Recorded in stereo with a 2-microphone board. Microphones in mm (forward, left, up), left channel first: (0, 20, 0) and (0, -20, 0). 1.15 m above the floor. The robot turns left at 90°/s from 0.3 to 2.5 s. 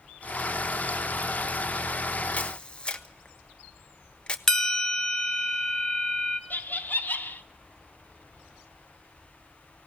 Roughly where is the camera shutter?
Left.